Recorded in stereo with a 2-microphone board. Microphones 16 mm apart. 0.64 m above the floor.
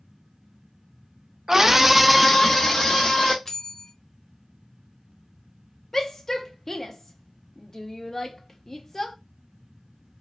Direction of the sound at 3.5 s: 20° left (ahead or behind).